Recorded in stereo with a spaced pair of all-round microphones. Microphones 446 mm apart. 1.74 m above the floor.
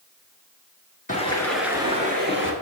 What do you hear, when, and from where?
1.1 s footsteps: 20° left (ahead or behind), 1.7 m; by 2.5 s 30° right (ahead or behind), 2.5 m